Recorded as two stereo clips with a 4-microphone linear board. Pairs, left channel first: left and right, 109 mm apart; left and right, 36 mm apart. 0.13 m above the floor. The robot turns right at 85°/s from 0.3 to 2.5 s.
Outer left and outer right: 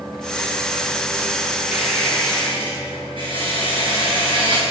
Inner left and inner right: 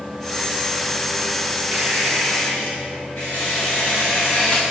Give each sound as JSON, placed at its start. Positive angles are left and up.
{"t": 1.7, "sound": "a squeak", "azimuth_deg": -15, "distance_m": 2.5}